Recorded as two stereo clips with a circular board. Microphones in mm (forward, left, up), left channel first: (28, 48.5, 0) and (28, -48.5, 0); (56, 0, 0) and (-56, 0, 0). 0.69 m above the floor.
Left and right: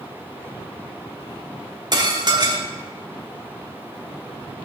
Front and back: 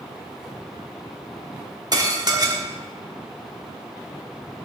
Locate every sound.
1.9 s dishes clattering: 130° right, 1.0 m